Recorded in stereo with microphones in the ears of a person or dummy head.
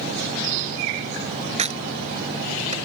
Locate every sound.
1.6 s a crack: 35° right (ahead or behind)